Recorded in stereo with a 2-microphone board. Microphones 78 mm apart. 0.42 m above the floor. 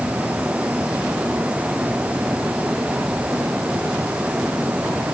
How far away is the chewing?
No chewing in this recording.